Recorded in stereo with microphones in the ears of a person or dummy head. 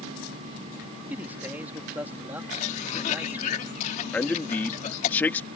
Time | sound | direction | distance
1.1 | a man speaking | 10° right (ahead or behind) | ?
2.5 | a cough | 40° left (ahead or behind) | ?
4.1 | a man speaking | 10° left (ahead or behind) | ?